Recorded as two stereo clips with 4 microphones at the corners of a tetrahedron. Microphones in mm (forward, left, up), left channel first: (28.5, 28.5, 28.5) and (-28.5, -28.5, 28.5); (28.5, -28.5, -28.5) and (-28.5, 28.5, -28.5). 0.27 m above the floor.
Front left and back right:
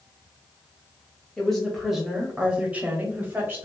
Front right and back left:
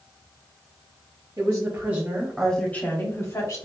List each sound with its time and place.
1.4 s a woman speaking: 125° left, 1.1 m; by 3.6 s 75° right, 1.4 m